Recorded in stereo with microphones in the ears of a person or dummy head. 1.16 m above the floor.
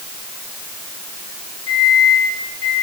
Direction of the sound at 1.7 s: 65° left (ahead or behind).